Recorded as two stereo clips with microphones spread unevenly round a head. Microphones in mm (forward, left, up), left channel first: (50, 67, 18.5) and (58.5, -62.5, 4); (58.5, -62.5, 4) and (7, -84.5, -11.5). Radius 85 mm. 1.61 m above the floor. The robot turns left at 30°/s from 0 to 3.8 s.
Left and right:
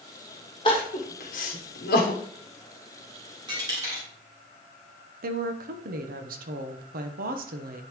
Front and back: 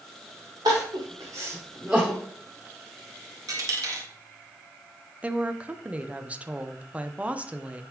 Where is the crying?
155° left, 1.0 m; by 2.2 s 110° left, 1.0 m.